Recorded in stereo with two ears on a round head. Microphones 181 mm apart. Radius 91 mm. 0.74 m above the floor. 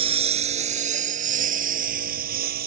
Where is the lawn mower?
30° right (ahead or behind); by 2.7 s 45° right (ahead or behind).